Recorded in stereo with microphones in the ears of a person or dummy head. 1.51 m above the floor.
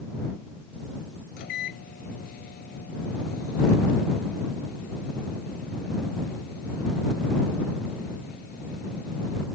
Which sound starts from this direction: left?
A microwave, at 1.4 s.